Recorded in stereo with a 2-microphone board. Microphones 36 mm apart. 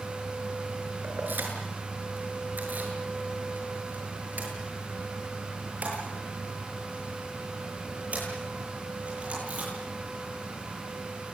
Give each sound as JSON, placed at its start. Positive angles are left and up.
{"t": 1.0, "sound": "keys jangling", "side_deg": -65, "distance_m": 7.0}